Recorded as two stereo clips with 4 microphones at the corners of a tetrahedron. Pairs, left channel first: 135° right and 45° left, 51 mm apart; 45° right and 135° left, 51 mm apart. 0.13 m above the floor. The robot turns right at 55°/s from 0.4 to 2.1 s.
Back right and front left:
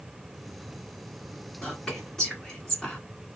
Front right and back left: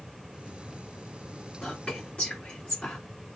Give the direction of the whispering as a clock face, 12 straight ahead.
3 o'clock.